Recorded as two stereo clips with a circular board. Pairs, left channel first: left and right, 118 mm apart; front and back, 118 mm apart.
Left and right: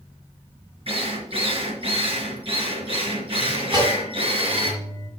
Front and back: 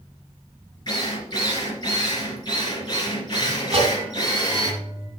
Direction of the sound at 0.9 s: 50° right.